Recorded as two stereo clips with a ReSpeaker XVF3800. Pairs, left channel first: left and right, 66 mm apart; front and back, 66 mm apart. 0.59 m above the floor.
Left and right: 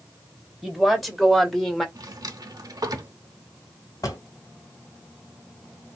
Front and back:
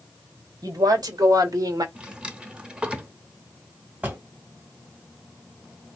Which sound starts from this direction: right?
A drawer, at 1.9 s.